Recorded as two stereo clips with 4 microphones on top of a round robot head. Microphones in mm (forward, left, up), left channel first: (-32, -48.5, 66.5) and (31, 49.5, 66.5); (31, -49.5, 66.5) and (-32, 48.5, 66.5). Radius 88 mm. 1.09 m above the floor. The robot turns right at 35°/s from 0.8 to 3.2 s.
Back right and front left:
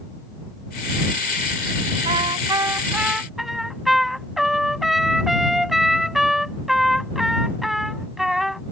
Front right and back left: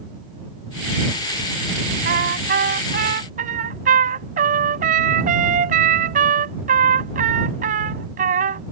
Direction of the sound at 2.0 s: 105° left.